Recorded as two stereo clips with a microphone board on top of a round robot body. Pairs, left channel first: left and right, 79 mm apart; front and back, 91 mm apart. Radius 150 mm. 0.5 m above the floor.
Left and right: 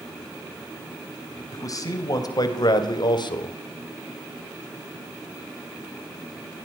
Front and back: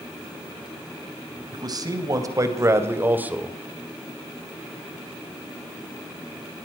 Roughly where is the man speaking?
Behind left.